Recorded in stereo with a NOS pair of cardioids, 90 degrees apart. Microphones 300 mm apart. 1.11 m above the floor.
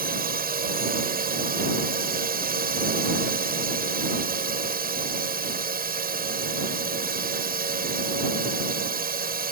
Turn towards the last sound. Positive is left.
turn(degrees=-30)